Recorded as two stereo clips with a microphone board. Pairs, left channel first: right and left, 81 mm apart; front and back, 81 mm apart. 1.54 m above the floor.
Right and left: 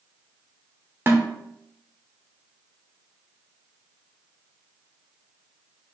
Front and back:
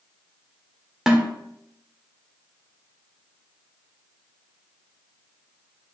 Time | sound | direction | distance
1.1 | a snare drum | 105° left | 1.3 m